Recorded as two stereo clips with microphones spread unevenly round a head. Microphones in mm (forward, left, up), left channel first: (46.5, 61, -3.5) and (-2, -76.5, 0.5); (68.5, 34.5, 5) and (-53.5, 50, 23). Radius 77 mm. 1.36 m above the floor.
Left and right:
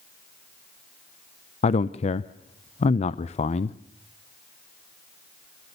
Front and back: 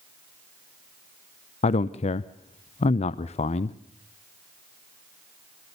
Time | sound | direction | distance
1.6 | a man speaking | 25° left | 0.6 m